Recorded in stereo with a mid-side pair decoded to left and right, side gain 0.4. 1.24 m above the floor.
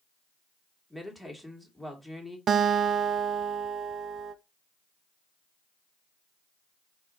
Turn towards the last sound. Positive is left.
turn(degrees=-60)